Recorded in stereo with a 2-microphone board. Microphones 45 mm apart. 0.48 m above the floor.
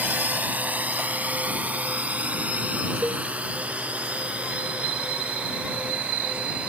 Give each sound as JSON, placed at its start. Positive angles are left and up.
{"t": 0.0, "sound": "a drone", "side_deg": -40}
{"t": 3.0, "sound": "a cowbell", "side_deg": -35}